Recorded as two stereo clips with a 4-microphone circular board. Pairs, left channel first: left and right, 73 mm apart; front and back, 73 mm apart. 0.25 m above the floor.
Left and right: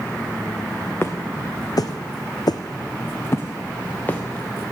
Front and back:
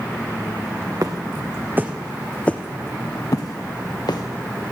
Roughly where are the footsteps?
Behind left.